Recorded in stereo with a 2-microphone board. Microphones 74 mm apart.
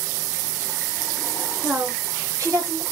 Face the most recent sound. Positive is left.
turn(degrees=-55)  # may be behind; listen again after turning